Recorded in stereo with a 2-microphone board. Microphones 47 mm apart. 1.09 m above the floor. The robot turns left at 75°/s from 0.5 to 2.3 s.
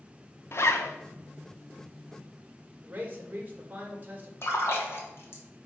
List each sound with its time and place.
0.5 s a zipper: 115° left, 0.7 m; by 0.9 s 80° left, 0.7 m
2.8 s a man speaking: 35° right (ahead or behind), 1.6 m
4.4 s a splash: 55° left (ahead or behind), 1.5 m